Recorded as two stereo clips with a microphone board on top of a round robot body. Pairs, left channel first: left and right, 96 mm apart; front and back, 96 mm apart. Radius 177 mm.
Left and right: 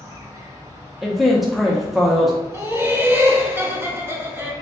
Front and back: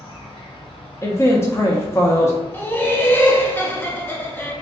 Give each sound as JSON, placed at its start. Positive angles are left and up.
{"t": 0.0, "sound": "an insect", "azimuth_deg": -30, "distance_m": 1.2}
{"t": 1.0, "sound": "a man speaking", "azimuth_deg": -5, "distance_m": 0.8}
{"t": 2.5, "sound": "laughter", "azimuth_deg": -45, "distance_m": 1.2}